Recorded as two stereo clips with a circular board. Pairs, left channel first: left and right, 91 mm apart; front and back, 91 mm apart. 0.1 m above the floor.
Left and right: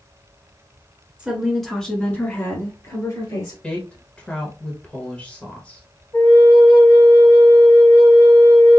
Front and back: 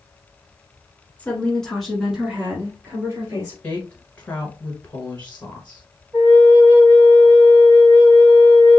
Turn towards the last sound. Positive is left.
turn(degrees=135)